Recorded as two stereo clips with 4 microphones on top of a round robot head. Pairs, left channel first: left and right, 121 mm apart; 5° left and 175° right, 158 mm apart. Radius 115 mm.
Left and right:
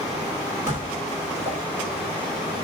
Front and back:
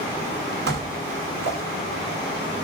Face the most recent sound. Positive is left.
turn(degrees=-165)